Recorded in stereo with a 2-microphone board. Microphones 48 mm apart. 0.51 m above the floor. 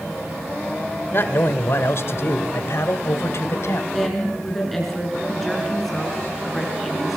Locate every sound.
1.1 s a man speaking: 55° left (ahead or behind), 1.7 m; by 3.8 s 70° left (ahead or behind), 2.5 m
3.9 s a woman speaking: 5° left (ahead or behind), 6 m